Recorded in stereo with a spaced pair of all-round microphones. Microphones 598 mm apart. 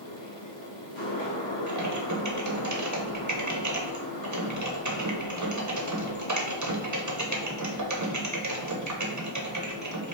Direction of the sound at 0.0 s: 50° left (ahead or behind).